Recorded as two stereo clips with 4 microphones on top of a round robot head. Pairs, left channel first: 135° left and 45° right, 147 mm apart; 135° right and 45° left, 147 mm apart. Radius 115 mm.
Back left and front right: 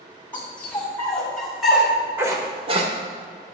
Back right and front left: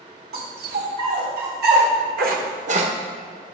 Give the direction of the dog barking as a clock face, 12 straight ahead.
10 o'clock.